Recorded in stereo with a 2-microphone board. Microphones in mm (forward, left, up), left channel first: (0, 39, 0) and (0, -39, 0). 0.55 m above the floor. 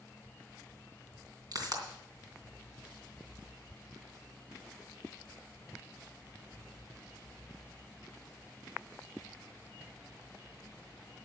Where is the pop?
55° right (ahead or behind), 3 m.